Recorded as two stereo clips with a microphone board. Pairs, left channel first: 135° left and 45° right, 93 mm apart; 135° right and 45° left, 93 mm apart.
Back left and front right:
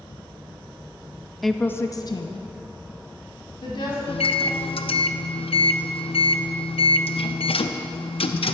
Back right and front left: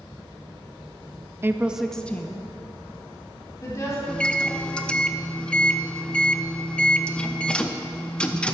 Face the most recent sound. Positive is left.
turn(degrees=145)